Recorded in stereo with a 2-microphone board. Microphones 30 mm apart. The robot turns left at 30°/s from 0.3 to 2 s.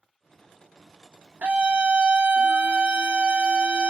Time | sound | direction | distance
1.4 | a scream | 60° right (ahead or behind) | 1.1 m